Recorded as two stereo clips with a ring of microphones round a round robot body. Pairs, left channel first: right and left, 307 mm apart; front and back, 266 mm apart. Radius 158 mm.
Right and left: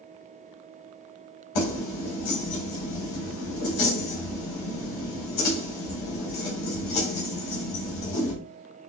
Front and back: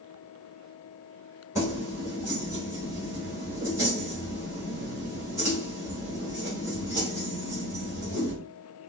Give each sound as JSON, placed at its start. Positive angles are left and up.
{"t": 1.6, "sound": "keys jangling", "azimuth_deg": -100, "distance_m": 2.0}